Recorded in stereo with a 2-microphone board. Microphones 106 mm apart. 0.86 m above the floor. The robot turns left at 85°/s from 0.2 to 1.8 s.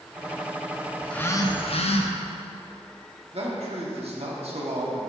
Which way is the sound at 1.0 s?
Straight behind.